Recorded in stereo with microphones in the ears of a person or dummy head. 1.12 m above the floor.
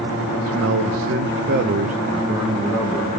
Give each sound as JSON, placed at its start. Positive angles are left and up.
{"t": 0.5, "sound": "a man speaking", "side_deg": -60, "distance_m": 1.3}